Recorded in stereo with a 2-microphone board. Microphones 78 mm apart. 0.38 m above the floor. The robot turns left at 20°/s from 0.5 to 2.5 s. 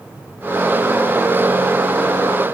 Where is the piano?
No piano in this recording.